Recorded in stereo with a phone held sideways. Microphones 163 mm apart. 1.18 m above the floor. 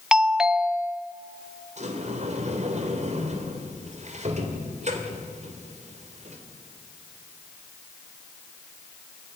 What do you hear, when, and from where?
0.1 s a doorbell: 5° right (ahead or behind), 0.6 m
1.8 s a sliding door: 45° right (ahead or behind), 2.5 m